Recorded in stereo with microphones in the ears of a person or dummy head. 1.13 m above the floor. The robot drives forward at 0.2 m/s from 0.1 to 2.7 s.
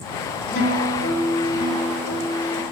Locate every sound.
0.5 s a guitar: 75° left (ahead or behind), 4 m; by 2.6 s 70° left (ahead or behind), 4 m